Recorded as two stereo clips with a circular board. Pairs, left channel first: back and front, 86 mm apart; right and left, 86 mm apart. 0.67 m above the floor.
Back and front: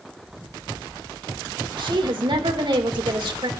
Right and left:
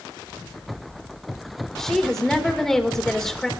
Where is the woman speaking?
5° right, 2.5 m.